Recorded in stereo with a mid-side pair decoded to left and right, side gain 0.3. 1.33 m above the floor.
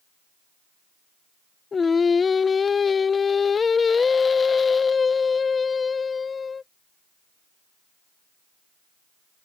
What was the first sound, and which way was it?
Singing, 55° left.